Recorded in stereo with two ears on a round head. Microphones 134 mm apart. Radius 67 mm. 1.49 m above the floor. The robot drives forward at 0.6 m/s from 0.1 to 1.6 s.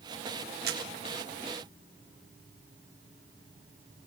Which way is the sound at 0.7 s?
75° right (ahead or behind).